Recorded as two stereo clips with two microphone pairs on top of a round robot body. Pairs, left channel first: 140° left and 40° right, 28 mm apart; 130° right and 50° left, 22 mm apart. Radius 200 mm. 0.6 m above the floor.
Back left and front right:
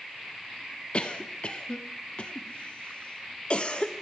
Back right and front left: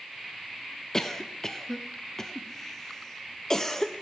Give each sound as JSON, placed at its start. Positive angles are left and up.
{"t": 0.9, "sound": "a cough", "azimuth_deg": 175, "distance_m": 0.8}